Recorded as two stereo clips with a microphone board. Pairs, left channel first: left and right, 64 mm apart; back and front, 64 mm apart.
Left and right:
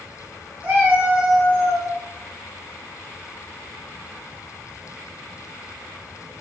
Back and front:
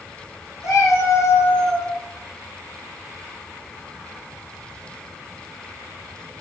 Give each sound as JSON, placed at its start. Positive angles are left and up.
{"t": 0.6, "sound": "a cat meowing", "azimuth_deg": -150, "distance_m": 1.5}